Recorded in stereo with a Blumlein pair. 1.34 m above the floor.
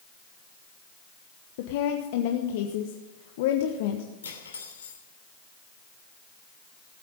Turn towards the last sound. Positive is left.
turn(degrees=70)